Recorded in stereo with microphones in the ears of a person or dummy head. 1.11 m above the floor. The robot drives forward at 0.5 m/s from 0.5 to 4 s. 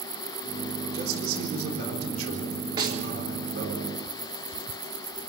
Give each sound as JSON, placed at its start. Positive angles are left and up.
{"t": 0.9, "sound": "a man speaking", "side_deg": -80, "distance_m": 4.0}
{"t": 2.8, "sound": "a snare drum", "side_deg": -25, "distance_m": 3.5}